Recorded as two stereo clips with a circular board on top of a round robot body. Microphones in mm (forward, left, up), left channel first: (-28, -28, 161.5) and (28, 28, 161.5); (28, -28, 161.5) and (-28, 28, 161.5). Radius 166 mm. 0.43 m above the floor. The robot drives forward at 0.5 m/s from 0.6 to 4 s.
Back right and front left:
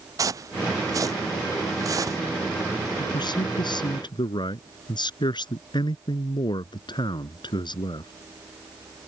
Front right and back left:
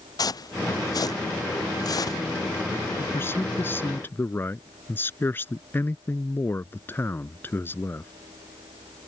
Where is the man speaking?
105° right.